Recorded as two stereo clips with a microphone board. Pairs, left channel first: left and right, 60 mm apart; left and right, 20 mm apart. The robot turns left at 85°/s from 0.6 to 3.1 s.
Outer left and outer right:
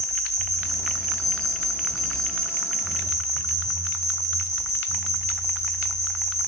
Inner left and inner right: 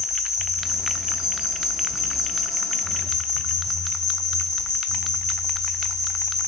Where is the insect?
60° right, 4 m; by 6.5 s 90° left, 4 m.